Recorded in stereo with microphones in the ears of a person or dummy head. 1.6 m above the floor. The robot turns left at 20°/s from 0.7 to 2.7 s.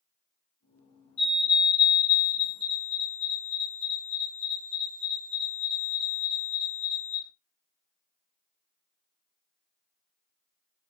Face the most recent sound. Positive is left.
turn(degrees=120)